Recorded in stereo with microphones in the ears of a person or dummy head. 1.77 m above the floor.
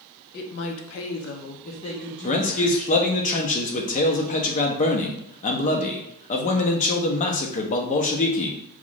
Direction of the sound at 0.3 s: 65° left (ahead or behind).